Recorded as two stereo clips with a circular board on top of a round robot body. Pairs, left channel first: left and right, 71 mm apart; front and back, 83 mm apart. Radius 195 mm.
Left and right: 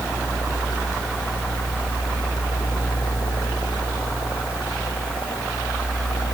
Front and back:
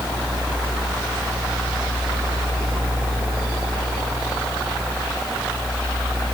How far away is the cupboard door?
I don't hear a cupboard door.